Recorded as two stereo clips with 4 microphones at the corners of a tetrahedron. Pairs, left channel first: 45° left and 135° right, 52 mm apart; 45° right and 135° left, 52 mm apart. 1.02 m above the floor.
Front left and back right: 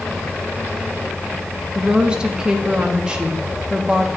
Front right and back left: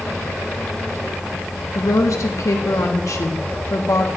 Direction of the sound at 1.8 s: 60° right.